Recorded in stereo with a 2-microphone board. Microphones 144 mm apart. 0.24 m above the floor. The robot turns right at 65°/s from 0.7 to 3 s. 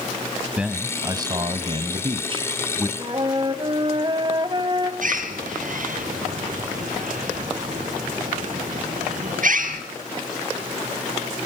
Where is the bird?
65° right (ahead or behind), 3 m.